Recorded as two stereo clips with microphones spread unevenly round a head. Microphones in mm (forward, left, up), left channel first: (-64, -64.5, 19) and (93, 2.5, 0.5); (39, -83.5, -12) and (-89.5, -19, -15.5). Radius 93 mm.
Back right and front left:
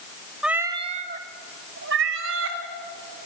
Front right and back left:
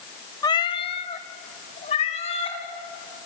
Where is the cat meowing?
70° right, 1.0 m; by 2.6 s 30° left, 2.5 m.